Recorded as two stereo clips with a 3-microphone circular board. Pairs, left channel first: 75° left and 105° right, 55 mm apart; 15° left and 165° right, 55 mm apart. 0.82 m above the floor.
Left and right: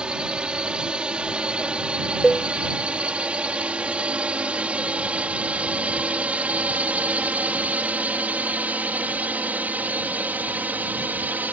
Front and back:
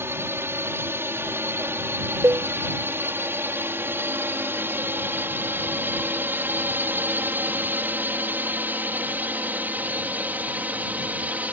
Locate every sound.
0.0 s a drone: 170° right; by 11.6 s 130° right
2.2 s a cowbell: 170° left